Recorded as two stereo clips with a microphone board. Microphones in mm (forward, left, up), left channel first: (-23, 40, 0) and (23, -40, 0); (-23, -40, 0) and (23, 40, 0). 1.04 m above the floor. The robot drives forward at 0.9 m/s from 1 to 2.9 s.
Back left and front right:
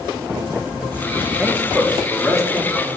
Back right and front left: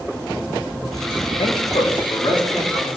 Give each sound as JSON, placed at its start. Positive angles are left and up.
{"t": 1.4, "sound": "a man speaking", "azimuth_deg": -135, "distance_m": 1.5}